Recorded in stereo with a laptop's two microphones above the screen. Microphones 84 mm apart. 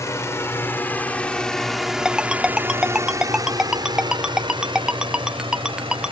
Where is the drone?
35° left (ahead or behind); by 6.1 s 75° right (ahead or behind).